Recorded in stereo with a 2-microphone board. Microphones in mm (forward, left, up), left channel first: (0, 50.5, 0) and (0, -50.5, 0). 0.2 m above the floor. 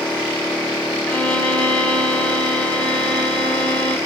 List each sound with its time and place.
1.1 s a violin: 15° left (ahead or behind), 1.9 m